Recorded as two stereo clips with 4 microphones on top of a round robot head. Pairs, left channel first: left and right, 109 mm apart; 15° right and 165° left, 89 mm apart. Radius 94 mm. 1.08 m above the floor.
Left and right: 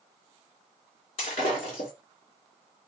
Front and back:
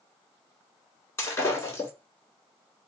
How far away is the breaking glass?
About 1.7 m.